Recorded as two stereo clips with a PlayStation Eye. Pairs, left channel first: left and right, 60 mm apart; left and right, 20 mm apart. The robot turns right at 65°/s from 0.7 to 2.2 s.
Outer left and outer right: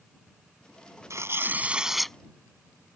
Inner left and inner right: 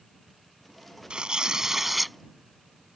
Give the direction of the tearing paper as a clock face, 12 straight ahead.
2 o'clock.